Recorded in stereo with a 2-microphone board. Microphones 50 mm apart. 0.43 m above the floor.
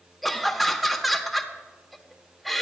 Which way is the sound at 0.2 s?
5° left (ahead or behind).